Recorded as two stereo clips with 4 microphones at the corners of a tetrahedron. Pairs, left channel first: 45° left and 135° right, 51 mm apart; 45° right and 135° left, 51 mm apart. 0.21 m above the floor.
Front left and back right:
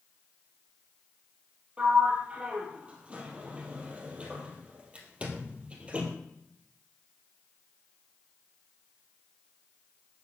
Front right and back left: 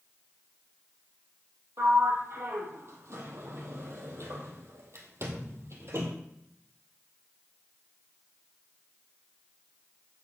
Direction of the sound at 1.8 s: 160° left.